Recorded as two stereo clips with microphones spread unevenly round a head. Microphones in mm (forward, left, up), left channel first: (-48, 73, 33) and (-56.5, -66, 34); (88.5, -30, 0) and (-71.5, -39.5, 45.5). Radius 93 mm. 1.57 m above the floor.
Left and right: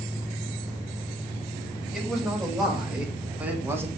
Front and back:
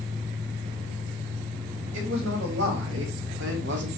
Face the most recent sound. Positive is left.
turn(degrees=-165)